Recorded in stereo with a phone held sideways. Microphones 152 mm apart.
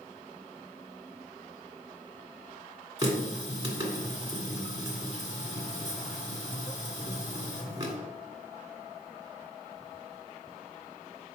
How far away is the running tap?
About 1.7 m.